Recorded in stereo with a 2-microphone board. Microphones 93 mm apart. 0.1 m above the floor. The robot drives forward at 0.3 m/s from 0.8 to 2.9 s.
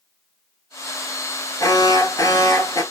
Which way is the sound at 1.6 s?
35° left (ahead or behind).